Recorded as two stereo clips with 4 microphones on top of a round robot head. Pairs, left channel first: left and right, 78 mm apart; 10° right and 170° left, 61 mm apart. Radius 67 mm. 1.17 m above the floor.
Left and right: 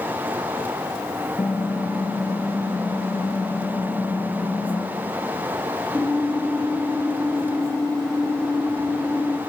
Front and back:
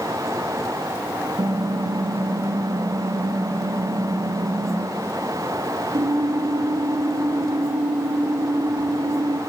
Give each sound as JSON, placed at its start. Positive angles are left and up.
{"t": 1.4, "sound": "typing on a keyboard", "azimuth_deg": 165, "distance_m": 0.9}